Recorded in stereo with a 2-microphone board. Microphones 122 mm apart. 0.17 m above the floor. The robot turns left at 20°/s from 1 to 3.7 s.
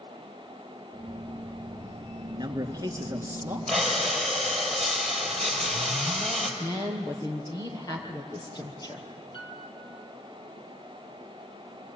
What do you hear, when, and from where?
2.3 s a man speaking: 35° right (ahead or behind), 2.5 m; by 3.6 s 15° right (ahead or behind), 2.5 m
3.7 s breathing: 5° left (ahead or behind), 4 m
6.6 s a woman speaking: 30° left (ahead or behind), 4 m
9.3 s a piano: 40° left (ahead or behind), 3.5 m